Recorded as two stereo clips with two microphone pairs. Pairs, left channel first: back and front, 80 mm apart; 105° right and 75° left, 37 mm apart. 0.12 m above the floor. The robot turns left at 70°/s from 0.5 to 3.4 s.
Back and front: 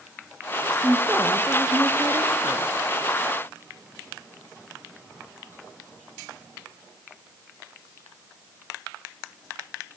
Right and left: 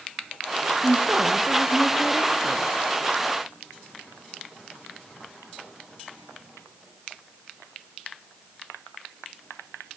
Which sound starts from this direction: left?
A woman speaking, at 0.8 s.